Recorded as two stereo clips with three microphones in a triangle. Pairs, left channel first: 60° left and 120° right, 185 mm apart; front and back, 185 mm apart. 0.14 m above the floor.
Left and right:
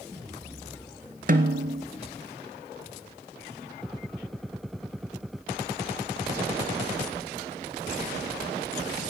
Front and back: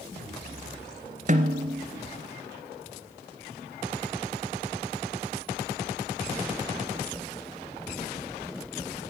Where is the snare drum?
145° right, 1.0 m.